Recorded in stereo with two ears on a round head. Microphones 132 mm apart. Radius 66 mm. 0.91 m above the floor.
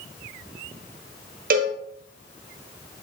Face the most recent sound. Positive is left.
turn(degrees=-65)  # may be behind; listen again after turning